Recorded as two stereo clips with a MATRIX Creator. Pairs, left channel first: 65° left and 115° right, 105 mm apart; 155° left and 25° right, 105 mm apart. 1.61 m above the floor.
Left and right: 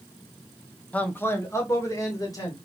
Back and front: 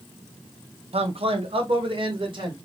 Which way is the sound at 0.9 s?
10° right.